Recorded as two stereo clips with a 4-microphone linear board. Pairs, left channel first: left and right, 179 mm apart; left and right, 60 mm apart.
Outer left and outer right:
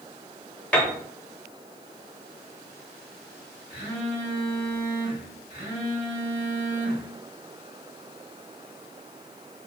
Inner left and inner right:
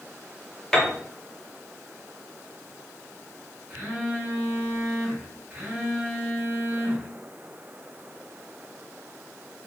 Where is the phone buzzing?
35° right (ahead or behind), 1.8 m.